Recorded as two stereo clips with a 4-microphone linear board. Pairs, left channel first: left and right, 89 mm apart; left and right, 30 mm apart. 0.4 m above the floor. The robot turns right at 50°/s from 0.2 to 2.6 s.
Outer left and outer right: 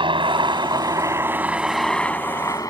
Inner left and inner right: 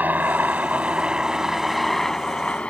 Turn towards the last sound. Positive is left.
turn(degrees=40)  # may be behind; listen again after turning